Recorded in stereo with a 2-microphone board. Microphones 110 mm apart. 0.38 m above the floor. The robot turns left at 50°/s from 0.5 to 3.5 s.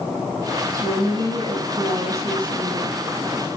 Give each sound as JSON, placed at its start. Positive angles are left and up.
{"t": 0.7, "sound": "a woman speaking", "azimuth_deg": -30, "distance_m": 3.5}